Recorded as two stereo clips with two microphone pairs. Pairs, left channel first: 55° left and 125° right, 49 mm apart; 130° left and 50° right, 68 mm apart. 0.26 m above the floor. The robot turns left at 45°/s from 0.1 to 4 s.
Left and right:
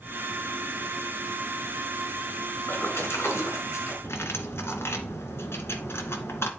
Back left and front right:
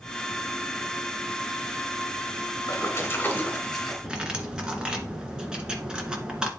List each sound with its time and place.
2.7 s a splash: 95° left, 3 m; by 3.9 s 40° left, 3 m
4.0 s cutlery clinking: 30° left, 2 m